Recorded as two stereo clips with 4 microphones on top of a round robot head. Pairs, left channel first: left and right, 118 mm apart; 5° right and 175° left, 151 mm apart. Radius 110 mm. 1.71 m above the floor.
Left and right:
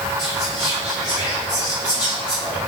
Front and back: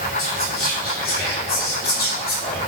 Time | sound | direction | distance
0.2 | whispering | 15° left | 0.7 m